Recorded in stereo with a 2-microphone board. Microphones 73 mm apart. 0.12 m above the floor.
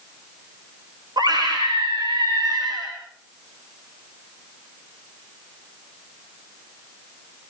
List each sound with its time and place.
1.2 s a scream: 70° right (ahead or behind), 8.5 m